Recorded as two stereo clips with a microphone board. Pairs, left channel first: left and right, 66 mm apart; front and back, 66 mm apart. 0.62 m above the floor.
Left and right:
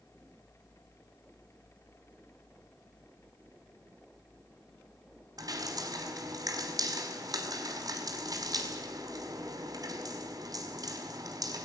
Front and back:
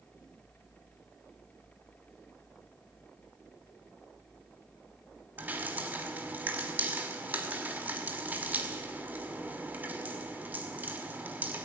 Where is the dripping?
115° right, 5.5 m.